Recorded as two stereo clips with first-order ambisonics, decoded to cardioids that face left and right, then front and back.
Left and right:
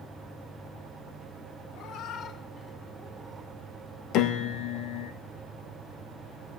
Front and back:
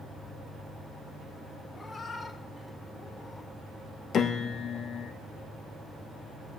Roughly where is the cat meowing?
Left.